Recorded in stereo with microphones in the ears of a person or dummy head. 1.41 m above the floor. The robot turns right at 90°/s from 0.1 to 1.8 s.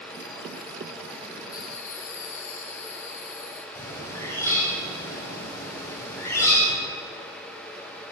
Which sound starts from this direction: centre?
A bird, at 3.8 s.